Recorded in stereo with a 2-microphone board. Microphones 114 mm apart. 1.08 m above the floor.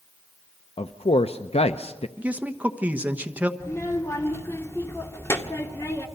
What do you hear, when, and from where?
0.8 s a man speaking: 60° left (ahead or behind), 0.6 m
2.2 s a man speaking: 15° right (ahead or behind), 1.2 m
3.6 s a child speaking: 25° left (ahead or behind), 1.8 m